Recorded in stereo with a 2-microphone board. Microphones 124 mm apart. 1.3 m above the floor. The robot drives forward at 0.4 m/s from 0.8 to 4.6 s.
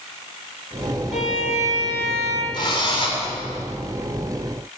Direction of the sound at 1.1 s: 70° left (ahead or behind).